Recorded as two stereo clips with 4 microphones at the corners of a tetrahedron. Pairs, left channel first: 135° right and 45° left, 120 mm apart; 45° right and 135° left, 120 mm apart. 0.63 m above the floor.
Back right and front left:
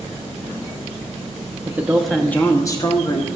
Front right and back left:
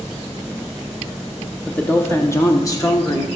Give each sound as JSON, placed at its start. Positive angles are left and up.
{"t": 1.7, "sound": "a woman speaking", "azimuth_deg": 20, "distance_m": 0.9}